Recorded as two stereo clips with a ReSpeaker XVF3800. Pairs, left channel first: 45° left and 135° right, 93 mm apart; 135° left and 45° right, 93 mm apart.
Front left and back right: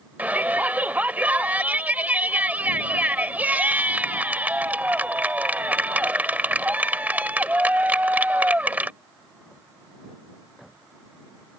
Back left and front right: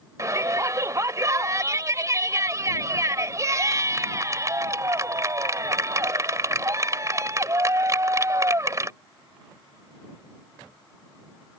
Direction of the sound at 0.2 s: 70° right.